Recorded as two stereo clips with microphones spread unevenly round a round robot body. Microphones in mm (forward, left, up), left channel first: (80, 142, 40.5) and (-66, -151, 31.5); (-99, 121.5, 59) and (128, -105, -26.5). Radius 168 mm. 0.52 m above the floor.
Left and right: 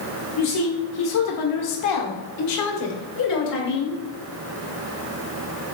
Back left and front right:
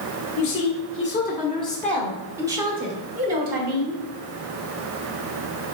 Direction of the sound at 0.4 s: 95° left.